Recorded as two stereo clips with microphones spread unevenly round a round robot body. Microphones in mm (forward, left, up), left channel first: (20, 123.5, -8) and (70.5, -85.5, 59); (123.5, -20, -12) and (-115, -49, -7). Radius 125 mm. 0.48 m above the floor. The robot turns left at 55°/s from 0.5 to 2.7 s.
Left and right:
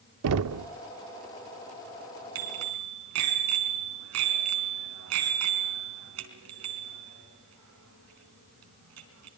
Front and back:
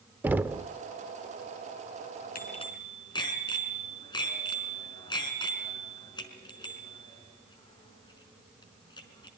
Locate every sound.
0.2 s knocking: 90° right, 0.6 m; by 0.7 s 100° right, 0.6 m
2.4 s a bicycle bell: 45° right, 4 m; by 9.3 s 65° right, 4 m